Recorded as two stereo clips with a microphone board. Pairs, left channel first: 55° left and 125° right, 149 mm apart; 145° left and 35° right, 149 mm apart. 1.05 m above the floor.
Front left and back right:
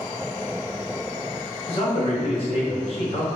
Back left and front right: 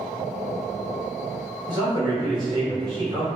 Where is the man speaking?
20° left, 1.3 m.